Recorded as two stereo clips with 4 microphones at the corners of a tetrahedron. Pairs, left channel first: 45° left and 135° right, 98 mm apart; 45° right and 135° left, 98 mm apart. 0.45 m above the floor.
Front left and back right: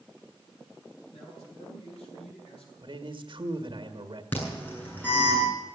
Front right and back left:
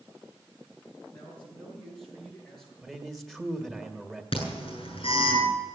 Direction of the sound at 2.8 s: 130° right.